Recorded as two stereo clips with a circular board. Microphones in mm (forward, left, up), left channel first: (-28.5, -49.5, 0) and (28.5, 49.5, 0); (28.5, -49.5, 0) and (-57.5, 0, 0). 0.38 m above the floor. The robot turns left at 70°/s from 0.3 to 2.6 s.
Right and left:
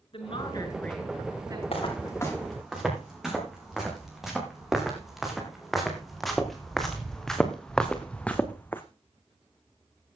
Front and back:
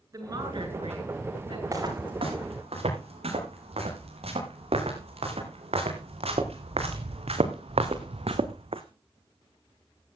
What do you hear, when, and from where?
0.1 s a woman speaking: 155° right, 6 m; by 1.6 s 110° left, 6 m
1.7 s footsteps: 155° right, 10 m; by 8.8 s 170° left, 1.5 m